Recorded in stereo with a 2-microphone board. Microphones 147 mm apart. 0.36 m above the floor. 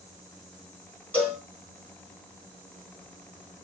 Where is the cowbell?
10° left (ahead or behind), 1.4 m.